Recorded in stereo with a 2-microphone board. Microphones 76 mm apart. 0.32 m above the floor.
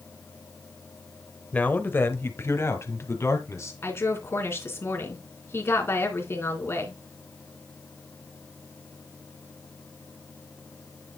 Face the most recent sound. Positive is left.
turn(degrees=35)  # may be behind; listen again after turning